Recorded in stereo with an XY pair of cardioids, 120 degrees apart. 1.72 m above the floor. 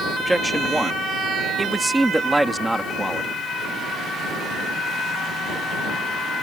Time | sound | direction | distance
0.2 | a man speaking | 10° right | ?